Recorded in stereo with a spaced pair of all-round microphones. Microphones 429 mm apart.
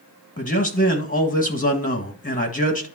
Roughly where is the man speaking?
Centre.